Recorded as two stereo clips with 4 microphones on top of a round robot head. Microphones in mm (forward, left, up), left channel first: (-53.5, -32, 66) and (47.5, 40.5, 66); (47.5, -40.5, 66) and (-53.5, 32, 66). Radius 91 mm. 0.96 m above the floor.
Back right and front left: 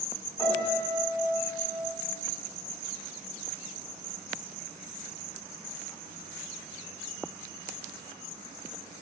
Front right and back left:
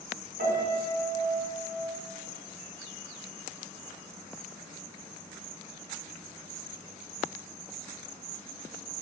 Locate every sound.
0.4 s a piano: 150° left, 7.5 m